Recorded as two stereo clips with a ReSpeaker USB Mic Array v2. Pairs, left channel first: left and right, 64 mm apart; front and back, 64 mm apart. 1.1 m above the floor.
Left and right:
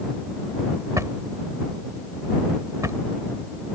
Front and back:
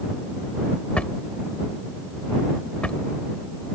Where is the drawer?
70° right.